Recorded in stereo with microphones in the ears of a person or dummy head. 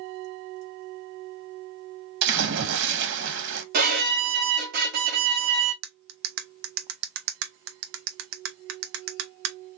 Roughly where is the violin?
Right.